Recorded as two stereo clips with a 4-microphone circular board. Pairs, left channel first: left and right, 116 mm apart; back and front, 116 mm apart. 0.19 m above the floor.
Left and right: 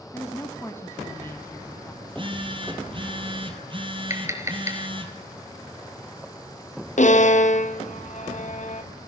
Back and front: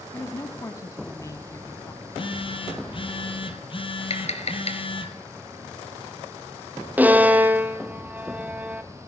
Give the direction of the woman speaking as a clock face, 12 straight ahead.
7 o'clock.